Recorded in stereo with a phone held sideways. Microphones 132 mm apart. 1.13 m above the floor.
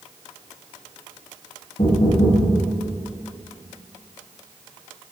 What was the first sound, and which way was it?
Knocking, 60° left (ahead or behind).